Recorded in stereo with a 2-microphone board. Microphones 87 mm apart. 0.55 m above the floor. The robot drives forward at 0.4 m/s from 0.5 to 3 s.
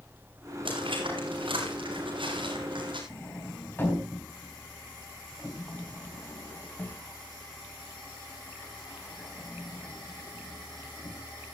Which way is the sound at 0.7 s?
85° right.